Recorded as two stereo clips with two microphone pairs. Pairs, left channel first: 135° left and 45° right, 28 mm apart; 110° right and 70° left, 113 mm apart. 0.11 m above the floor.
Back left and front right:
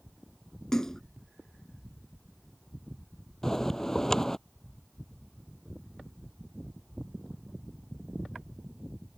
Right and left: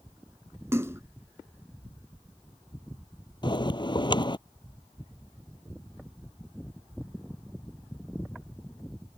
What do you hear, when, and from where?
0.7 s a splash: 100° left
3.4 s a bell: 155° right